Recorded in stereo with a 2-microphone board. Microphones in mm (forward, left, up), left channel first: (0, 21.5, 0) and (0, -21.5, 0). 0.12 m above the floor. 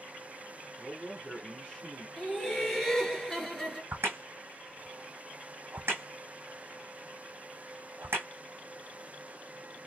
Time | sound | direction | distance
0.8 | a man speaking | 20° left (ahead or behind) | 1.1 m
2.2 | laughter | 10° left (ahead or behind) | 1.7 m
3.9 | a crack | 80° right | 1.6 m